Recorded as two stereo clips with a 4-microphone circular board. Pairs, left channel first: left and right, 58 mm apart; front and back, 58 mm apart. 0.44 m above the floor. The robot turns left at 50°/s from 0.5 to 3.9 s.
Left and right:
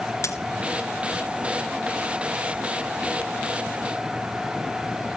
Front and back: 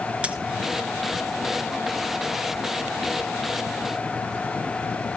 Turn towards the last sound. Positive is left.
turn(degrees=-60)